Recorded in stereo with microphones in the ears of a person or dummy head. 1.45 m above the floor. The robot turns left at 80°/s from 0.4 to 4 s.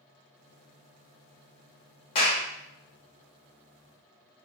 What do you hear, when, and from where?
2.1 s a clap: 35° left (ahead or behind), 0.8 m; by 2.4 s 15° left (ahead or behind), 0.8 m